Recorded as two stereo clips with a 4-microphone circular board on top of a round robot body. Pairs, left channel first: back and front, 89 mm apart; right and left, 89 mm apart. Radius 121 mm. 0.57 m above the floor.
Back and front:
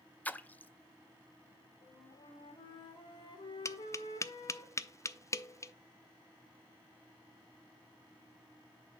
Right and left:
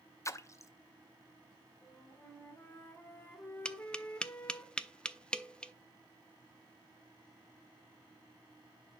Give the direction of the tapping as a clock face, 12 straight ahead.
5 o'clock.